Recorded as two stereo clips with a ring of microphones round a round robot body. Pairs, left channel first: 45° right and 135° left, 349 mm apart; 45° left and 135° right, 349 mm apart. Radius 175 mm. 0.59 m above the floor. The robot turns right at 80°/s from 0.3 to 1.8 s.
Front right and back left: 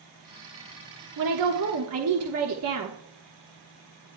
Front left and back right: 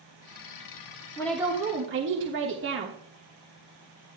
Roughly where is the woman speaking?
Behind left.